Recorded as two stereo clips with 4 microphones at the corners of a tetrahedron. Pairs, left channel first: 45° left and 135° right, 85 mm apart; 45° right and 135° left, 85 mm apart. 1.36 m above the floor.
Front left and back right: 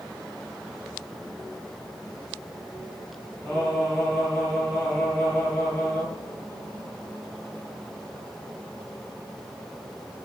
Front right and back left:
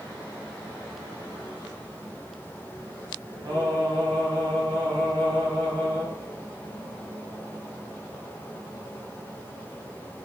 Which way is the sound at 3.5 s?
100° left.